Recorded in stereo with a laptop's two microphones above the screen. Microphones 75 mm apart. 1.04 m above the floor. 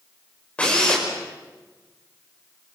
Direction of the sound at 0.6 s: 15° left (ahead or behind).